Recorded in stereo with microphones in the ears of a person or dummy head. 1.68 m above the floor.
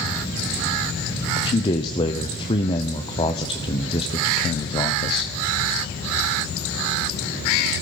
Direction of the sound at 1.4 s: 25° left (ahead or behind).